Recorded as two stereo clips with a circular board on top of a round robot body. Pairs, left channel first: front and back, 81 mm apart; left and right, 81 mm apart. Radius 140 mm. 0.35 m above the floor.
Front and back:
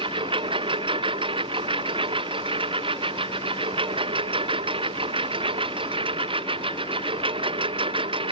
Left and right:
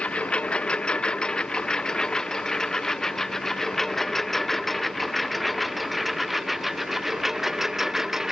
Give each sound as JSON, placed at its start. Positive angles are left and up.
{"t": 0.0, "sound": "a lawn mower", "azimuth_deg": 165}